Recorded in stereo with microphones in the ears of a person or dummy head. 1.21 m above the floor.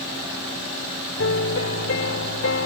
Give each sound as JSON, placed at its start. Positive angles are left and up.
{"t": 1.2, "sound": "a piano", "side_deg": 75}